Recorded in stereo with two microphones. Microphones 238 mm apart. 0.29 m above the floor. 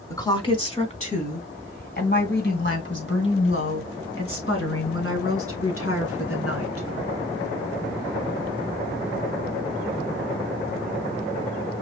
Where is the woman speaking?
15° left (ahead or behind), 1.4 m; by 6.9 s 70° left (ahead or behind), 4 m.